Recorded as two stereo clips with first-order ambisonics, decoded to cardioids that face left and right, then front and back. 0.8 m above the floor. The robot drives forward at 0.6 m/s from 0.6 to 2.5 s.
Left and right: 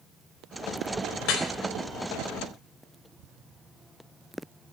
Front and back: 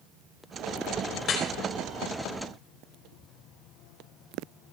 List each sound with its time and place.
1.2 s dripping: 60° left, 3.5 m; by 1.5 s 65° left, 3.5 m